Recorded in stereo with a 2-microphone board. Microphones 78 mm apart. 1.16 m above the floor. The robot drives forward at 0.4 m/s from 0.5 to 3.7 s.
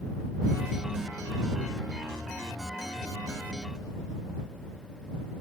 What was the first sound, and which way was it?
Only background noise.